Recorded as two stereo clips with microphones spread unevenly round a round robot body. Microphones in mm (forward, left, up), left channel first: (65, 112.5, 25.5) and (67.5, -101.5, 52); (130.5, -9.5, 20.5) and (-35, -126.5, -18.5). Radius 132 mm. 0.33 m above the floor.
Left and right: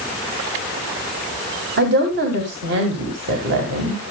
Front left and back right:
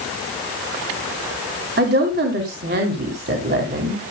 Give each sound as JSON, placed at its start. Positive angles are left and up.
{"t": 1.8, "sound": "a woman speaking", "azimuth_deg": -130, "distance_m": 2.5}